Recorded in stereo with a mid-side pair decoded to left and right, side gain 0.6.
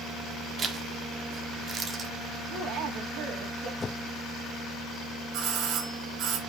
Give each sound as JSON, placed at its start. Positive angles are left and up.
{"t": 0.6, "sound": "a zipper", "azimuth_deg": -35, "distance_m": 1.5}
{"t": 2.5, "sound": "a woman speaking", "azimuth_deg": -60, "distance_m": 2.5}
{"t": 3.8, "sound": "a whoosh", "azimuth_deg": 30, "distance_m": 0.6}
{"t": 5.3, "sound": "a doorbell", "azimuth_deg": -65, "distance_m": 2.0}